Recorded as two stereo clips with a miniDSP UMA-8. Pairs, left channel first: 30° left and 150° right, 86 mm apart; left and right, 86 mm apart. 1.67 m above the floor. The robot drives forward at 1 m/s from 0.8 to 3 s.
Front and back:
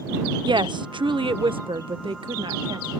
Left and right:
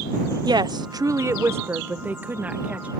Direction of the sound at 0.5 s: 125° right.